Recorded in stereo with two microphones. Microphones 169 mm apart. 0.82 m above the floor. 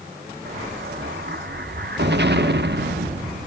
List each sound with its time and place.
0.5 s an explosion: 80° right, 1.0 m